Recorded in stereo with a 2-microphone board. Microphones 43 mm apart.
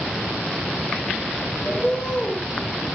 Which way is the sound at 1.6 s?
25° left (ahead or behind).